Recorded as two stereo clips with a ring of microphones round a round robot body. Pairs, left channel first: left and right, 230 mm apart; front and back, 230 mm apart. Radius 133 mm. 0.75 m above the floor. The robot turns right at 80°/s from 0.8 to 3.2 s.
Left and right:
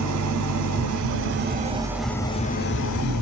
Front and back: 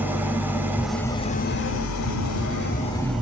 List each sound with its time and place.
0.0 s an engine running: 100° right, 0.8 m; by 3.2 s 95° left, 0.8 m